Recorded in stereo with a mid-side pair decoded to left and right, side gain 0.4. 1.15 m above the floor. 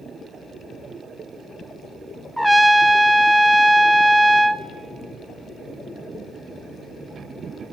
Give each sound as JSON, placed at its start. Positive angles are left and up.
{"t": 2.4, "sound": "a trumpet", "azimuth_deg": -5, "distance_m": 0.9}